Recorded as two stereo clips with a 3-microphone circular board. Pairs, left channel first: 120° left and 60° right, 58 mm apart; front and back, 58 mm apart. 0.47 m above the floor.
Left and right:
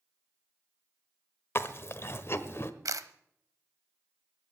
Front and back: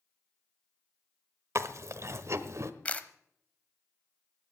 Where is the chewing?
155° left, 1.0 m.